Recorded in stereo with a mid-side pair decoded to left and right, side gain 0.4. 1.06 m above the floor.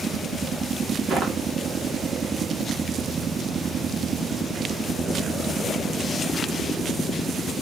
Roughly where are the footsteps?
Ahead right.